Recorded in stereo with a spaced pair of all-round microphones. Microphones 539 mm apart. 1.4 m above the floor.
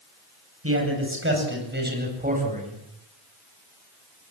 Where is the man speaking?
25° right (ahead or behind), 9 m; by 2.8 s 10° right (ahead or behind), 8.5 m.